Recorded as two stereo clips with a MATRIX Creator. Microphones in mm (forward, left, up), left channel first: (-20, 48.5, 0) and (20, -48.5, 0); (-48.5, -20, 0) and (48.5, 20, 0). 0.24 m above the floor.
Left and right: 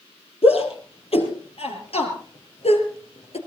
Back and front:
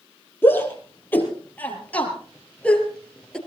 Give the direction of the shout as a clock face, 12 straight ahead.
8 o'clock.